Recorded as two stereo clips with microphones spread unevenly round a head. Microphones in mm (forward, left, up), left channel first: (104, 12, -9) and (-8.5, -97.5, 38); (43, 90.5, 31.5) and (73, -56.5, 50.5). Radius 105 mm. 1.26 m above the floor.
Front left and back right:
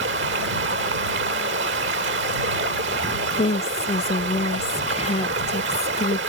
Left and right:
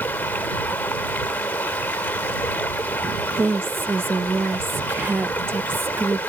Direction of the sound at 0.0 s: 175° right.